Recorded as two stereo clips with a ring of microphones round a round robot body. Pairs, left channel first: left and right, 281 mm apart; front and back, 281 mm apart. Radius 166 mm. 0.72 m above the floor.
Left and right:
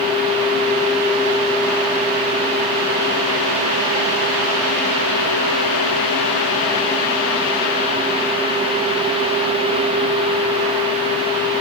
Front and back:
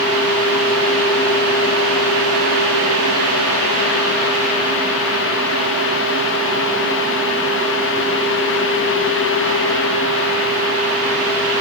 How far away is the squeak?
I don't hear a squeak.